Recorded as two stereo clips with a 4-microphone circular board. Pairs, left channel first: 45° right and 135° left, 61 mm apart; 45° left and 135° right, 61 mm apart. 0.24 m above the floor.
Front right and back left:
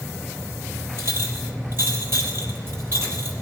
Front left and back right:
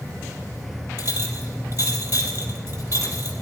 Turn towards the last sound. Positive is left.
turn(degrees=-175)